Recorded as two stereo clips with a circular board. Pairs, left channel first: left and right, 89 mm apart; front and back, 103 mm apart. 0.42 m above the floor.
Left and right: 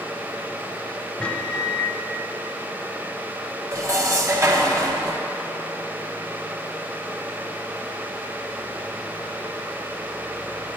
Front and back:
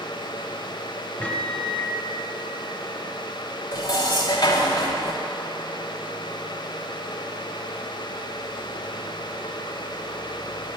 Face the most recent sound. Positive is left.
turn(degrees=-40)